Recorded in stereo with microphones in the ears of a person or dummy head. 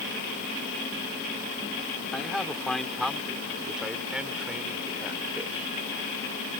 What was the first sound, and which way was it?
A man speaking, 5° left (ahead or behind).